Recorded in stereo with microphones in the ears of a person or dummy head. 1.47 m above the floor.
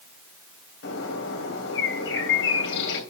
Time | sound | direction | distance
0.8 | a bird | 70° left (ahead or behind) | 3 m